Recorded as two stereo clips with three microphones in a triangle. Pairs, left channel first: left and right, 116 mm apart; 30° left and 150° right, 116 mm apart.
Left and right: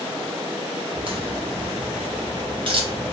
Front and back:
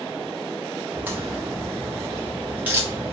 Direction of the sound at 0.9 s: 80° right.